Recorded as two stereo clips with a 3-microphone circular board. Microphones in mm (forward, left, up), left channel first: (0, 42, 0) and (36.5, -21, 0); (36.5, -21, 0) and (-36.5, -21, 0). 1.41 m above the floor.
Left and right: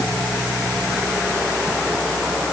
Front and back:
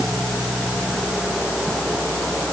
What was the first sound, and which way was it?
Only background noise.